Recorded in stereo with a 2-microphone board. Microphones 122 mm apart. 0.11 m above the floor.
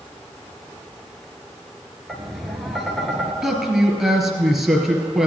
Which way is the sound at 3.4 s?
Centre (ahead or behind).